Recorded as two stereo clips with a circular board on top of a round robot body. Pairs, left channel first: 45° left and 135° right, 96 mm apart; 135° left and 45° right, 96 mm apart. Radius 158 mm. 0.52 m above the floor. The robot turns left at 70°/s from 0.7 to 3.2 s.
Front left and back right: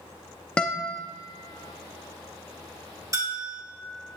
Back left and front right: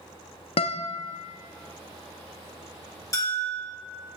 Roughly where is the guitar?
Behind left.